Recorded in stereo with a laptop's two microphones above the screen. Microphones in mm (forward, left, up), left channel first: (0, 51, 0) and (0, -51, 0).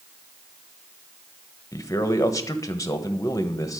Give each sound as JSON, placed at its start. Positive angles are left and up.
{"t": 1.7, "sound": "a man speaking", "side_deg": 30, "distance_m": 1.1}